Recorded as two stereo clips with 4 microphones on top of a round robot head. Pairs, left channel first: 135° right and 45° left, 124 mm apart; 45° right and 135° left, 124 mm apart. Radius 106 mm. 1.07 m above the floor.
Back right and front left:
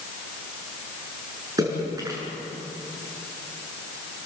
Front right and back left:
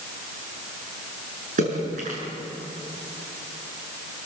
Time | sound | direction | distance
1.6 | a splash | 110° left | 6 m